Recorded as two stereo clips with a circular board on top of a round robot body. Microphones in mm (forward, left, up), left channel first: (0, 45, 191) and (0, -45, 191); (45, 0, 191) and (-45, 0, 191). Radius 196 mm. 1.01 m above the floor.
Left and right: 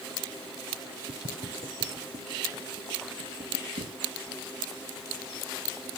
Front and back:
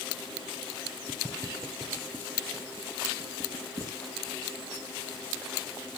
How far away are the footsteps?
About 2.5 m.